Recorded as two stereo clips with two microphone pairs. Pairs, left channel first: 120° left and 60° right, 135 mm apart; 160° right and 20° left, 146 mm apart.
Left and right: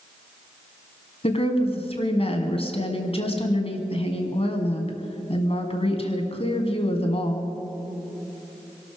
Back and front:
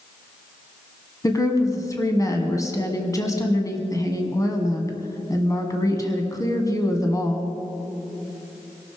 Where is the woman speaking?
140° left, 2 m.